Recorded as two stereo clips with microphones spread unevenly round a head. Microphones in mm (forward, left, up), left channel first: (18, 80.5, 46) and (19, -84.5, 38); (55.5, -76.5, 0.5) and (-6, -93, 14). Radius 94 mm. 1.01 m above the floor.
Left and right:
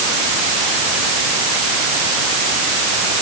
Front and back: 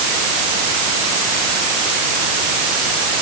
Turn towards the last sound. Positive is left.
No sound to turn to.